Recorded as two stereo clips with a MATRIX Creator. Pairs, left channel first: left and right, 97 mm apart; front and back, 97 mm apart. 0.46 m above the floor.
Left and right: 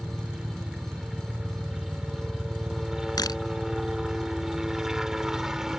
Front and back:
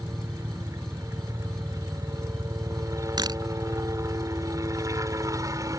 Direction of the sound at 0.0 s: 170° right.